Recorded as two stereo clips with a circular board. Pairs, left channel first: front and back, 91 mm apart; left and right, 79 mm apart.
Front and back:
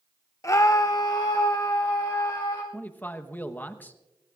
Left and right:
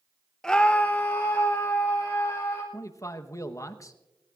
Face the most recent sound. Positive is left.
turn(degrees=60)